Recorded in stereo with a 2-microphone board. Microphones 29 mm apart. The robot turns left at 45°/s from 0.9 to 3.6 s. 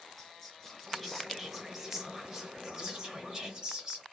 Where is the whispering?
10° left (ahead or behind), 1.0 m; by 4.0 s 25° right (ahead or behind), 1.0 m.